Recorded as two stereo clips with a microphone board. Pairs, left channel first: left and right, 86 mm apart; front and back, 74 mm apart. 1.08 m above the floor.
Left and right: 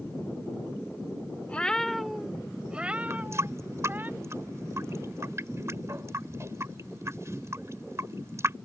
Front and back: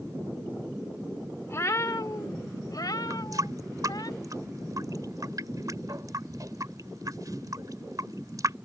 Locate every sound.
1.5 s a cat meowing: 25° left; by 4.1 s 25° right
3.1 s a running tap: 145° right